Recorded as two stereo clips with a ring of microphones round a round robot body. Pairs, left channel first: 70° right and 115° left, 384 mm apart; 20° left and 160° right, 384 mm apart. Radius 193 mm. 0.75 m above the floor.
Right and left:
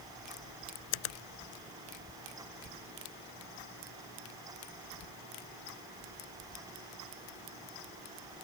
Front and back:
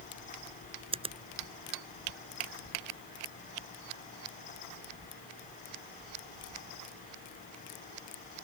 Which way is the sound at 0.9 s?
80° right.